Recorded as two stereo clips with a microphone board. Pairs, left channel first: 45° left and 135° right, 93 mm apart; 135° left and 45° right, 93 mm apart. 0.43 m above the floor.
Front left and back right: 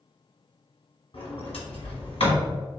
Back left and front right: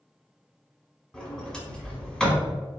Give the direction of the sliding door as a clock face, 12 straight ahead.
10 o'clock.